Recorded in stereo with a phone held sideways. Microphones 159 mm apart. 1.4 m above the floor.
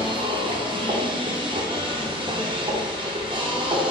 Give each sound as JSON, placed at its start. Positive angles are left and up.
{"t": 0.0, "sound": "a machine running", "side_deg": -30, "distance_m": 0.7}